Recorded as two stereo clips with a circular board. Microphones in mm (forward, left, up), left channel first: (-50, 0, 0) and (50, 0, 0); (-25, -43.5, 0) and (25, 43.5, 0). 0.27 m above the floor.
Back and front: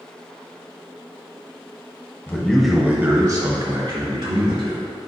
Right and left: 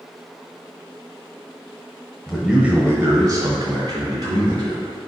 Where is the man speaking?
165° left, 1.0 m; by 4.9 s 20° left, 2.5 m.